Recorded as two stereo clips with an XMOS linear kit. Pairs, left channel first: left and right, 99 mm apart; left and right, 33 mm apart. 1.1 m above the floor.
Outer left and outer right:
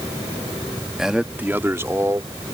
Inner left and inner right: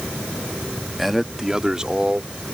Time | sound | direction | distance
1.0 | a man speaking | 5° right (ahead or behind) | ?